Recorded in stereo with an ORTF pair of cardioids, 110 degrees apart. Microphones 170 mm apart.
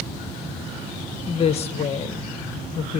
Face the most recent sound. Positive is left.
turn(degrees=40)